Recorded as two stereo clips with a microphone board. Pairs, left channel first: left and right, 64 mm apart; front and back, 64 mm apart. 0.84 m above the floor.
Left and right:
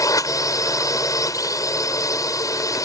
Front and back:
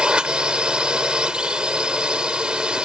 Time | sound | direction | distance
0.0 | a drone | 105° left | ?